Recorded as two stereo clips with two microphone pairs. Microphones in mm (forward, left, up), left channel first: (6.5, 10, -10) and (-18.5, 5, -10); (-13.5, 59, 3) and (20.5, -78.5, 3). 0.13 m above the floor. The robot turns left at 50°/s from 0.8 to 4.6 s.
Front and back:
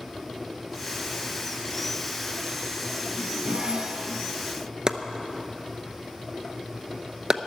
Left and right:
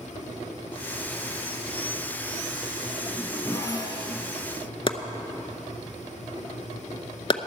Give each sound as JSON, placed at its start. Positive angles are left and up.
{"t": 3.0, "sound": "a zipper", "azimuth_deg": -165, "distance_m": 1.8}
{"t": 4.9, "sound": "chopping", "azimuth_deg": 140, "distance_m": 0.7}